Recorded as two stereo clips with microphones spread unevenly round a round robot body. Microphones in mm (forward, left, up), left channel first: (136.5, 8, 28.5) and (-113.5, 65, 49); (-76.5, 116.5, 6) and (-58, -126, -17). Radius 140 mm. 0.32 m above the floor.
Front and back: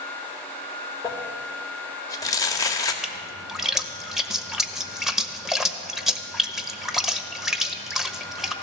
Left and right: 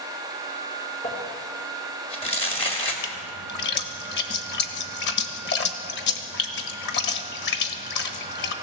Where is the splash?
75° left, 1.0 m.